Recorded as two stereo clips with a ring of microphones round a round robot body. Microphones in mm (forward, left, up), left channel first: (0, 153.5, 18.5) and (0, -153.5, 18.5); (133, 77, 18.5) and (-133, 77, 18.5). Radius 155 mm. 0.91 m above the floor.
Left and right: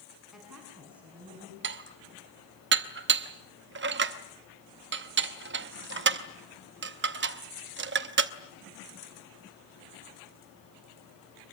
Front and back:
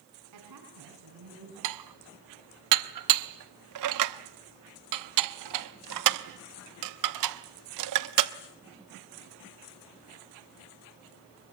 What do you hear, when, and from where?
0.3 s a woman speaking: straight behind, 7.5 m; by 1.5 s 175° right, 8 m
1.6 s dishes clattering: 145° right, 0.9 m